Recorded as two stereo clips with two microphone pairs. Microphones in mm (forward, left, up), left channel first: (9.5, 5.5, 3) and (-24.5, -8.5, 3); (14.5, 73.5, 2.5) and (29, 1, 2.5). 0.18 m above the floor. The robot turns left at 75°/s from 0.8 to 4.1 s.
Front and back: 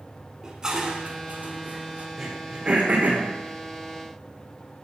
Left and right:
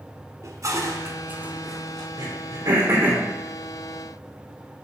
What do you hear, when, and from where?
0.4 s dishes clattering: 95° right, 1.1 m; by 2.1 s 170° left, 1.1 m
2.2 s throat clearing: 75° right, 3.5 m; by 3.2 s 155° right, 3.5 m